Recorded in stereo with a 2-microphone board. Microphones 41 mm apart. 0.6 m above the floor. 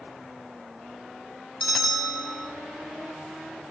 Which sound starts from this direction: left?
A bell, at 1.6 s.